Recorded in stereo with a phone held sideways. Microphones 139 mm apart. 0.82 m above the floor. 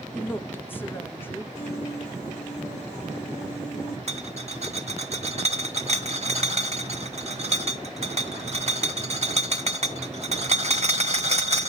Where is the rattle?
50° right (ahead or behind), 1.3 m.